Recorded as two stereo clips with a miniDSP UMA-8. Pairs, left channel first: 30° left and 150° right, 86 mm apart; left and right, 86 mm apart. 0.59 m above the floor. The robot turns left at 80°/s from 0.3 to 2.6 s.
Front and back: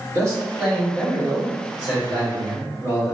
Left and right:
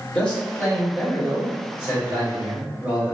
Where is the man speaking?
160° left, 1.5 m; by 3.1 s 20° right, 1.5 m.